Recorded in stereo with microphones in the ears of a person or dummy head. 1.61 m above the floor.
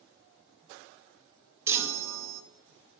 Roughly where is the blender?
I don't hear a blender.